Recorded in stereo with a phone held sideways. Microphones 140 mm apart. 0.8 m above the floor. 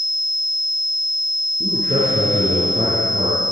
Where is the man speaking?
50° right (ahead or behind), 8.5 m.